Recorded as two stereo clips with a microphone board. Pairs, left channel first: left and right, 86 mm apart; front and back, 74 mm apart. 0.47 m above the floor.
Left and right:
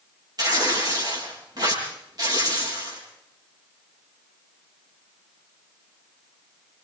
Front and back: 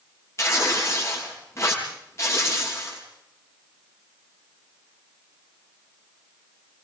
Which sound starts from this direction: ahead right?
Tearing paper, at 0.4 s.